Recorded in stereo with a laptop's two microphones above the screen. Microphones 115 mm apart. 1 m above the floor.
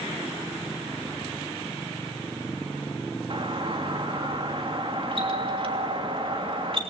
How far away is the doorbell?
About 2.5 m.